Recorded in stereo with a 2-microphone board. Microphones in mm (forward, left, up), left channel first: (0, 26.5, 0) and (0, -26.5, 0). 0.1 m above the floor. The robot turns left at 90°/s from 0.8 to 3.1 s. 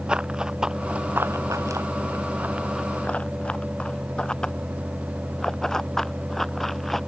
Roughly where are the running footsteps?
Centre.